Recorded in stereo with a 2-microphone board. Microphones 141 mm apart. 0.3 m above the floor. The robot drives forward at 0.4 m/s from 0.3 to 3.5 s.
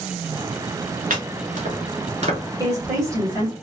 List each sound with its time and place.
1.1 s chopping: 70° right (ahead or behind), 1.1 m; by 2.4 s 50° right (ahead or behind), 1.4 m
2.6 s a woman speaking: 25° right (ahead or behind), 1.6 m